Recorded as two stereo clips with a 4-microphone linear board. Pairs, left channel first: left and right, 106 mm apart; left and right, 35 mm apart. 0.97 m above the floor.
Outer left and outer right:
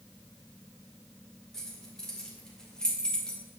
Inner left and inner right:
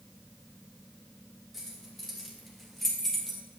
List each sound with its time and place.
1.5 s keys jangling: 5° left (ahead or behind), 3 m; by 3.4 s 10° left (ahead or behind), 2 m